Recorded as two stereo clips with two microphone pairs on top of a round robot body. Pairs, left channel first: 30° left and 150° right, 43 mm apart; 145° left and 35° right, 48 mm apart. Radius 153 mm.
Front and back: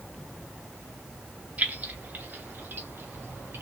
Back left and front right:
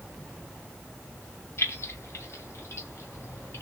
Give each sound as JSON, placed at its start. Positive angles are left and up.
{"t": 1.6, "sound": "keys jangling", "azimuth_deg": 160, "distance_m": 1.7}